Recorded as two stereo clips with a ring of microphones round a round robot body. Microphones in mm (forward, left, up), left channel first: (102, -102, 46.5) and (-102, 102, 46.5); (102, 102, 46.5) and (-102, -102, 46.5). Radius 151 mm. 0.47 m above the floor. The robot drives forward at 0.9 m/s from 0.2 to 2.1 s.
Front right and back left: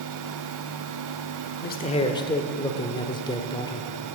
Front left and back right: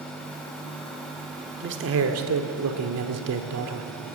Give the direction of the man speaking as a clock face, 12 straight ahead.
3 o'clock.